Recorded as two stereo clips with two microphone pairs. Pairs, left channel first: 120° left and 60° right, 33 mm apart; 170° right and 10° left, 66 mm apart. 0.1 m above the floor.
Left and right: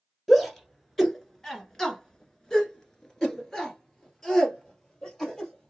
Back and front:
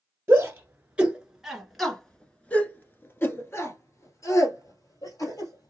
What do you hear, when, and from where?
0.3 s a shout: 40° left, 1.5 m; by 5.7 s 170° right, 2.5 m